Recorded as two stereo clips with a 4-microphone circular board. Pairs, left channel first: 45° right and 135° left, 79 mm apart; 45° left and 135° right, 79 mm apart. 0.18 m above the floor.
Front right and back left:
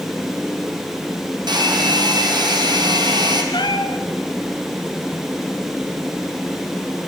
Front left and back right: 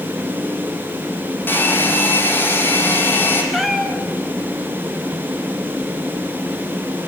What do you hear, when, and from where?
1.5 s a hair dryer: 110° left, 3 m
3.5 s a cat meowing: 45° right, 1.5 m